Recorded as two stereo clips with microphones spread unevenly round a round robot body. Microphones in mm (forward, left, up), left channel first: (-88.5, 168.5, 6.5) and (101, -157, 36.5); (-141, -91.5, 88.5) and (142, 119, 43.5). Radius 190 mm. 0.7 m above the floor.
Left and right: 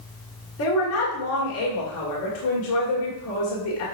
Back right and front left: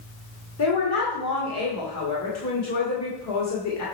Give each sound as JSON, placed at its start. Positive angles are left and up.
{"t": 0.6, "sound": "a woman speaking", "azimuth_deg": 170, "distance_m": 2.0}